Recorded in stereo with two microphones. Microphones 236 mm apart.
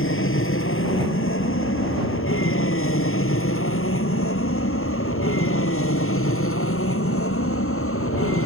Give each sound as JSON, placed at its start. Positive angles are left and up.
{"t": 0.0, "sound": "an aircraft", "side_deg": 60}